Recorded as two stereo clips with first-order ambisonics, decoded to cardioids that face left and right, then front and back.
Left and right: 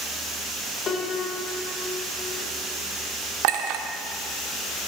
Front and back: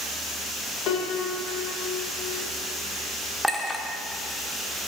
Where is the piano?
30° left, 1.4 m.